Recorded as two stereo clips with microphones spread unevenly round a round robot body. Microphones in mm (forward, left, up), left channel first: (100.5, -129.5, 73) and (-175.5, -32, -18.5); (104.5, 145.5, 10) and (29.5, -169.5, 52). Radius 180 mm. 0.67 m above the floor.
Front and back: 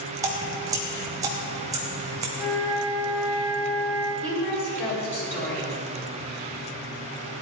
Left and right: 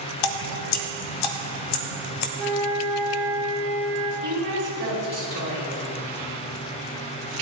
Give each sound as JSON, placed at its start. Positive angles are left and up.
{"t": 0.2, "sound": "dripping", "azimuth_deg": 80, "distance_m": 1.1}
{"t": 2.4, "sound": "a flute", "azimuth_deg": -30, "distance_m": 3.0}
{"t": 4.2, "sound": "a woman speaking", "azimuth_deg": -75, "distance_m": 5.0}